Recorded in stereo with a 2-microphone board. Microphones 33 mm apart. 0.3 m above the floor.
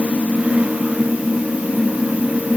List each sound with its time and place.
Only background noise.